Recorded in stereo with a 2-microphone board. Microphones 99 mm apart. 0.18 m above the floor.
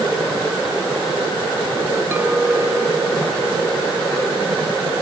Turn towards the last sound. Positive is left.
turn(degrees=-25)  # may be behind; listen again after turning